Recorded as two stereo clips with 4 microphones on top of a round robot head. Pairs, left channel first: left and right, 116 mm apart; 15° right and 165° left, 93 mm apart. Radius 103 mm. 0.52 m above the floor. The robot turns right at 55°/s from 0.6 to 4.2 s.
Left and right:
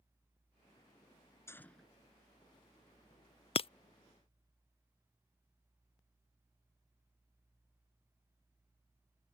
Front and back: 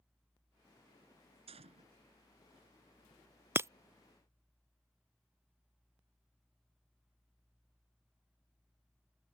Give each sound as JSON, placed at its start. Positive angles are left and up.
{"t": 1.5, "sound": "a gunshot", "azimuth_deg": 160}
{"t": 3.5, "sound": "breaking glass", "azimuth_deg": 105}